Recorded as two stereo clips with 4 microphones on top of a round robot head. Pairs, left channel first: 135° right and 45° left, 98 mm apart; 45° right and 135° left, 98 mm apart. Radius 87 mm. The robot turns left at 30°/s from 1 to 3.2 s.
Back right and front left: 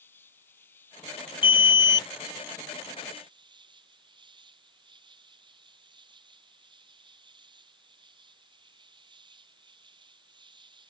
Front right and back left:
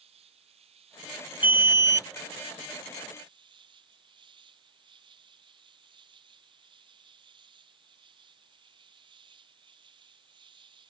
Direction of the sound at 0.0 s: 155° left.